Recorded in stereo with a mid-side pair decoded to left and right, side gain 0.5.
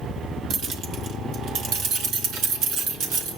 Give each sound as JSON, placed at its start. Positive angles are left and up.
{"t": 0.5, "sound": "keys jangling", "azimuth_deg": -60, "distance_m": 1.8}